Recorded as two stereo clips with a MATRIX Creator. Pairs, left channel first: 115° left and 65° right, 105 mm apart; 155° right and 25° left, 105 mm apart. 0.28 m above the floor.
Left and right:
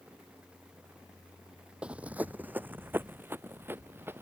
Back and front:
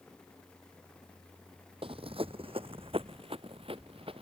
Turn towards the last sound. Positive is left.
turn(degrees=0)